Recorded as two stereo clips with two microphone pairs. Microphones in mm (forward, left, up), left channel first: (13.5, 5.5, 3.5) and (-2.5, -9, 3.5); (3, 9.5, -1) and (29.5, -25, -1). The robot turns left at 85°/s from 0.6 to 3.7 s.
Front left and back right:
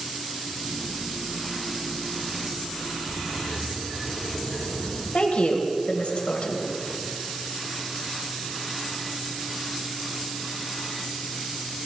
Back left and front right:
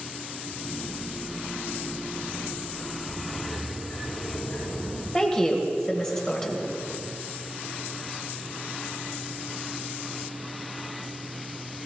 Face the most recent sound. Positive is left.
turn(degrees=60)